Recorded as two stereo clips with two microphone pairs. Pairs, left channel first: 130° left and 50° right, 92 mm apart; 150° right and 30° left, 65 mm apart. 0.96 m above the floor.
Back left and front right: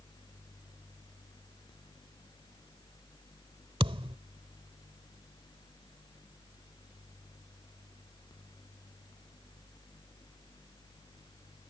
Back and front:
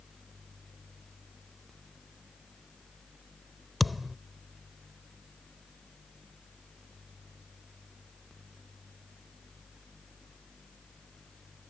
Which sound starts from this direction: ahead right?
A thud, at 3.8 s.